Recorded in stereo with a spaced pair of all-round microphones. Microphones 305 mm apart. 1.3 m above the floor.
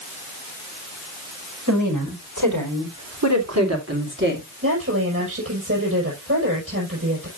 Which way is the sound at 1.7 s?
85° right.